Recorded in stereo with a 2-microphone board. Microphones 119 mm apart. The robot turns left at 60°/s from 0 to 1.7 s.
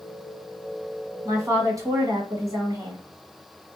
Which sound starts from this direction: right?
A woman speaking, at 1.2 s.